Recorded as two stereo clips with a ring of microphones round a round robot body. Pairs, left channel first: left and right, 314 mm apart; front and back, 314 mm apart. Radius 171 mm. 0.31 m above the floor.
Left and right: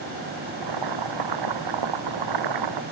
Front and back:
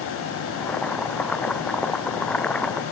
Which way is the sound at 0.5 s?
85° right.